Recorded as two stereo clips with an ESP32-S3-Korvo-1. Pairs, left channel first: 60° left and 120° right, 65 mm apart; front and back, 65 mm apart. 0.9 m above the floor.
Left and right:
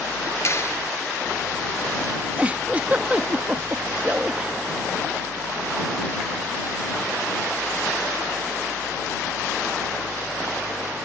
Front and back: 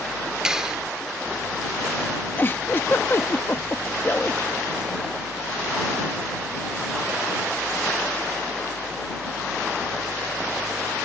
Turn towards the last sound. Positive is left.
turn(degrees=-55)